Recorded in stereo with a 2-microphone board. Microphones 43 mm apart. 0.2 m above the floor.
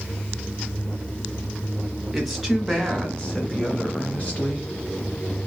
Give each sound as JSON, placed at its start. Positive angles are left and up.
{"t": 2.1, "sound": "a woman speaking", "side_deg": -5, "distance_m": 1.3}